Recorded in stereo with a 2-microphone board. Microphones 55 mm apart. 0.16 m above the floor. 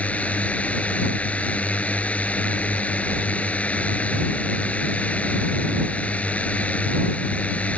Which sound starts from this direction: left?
A drone, at 0.0 s.